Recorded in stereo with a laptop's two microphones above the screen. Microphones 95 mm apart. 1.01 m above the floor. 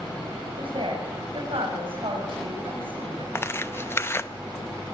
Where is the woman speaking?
65° right (ahead or behind), 6.5 m.